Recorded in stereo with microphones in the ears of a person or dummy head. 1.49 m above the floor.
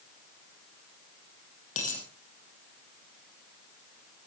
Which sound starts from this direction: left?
A dropped coin, at 1.8 s.